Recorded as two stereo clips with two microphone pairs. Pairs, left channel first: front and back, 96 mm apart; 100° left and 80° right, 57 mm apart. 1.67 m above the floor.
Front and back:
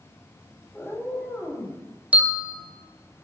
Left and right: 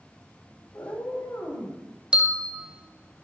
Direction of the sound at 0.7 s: 80° left.